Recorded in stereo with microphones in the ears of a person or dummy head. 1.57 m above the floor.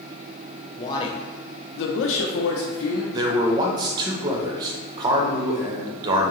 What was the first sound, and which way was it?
A man speaking, 25° left (ahead or behind).